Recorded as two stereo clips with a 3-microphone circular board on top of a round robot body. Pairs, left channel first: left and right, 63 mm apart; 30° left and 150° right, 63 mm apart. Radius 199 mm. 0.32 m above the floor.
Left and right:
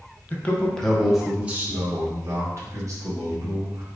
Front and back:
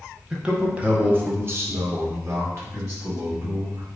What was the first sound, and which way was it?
A man speaking, 135° left.